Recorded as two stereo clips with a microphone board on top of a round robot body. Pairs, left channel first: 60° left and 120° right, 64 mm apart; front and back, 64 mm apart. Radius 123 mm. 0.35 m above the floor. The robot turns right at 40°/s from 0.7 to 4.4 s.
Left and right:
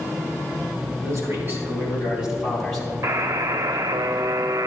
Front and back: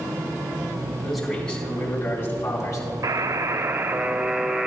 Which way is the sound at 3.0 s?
150° right.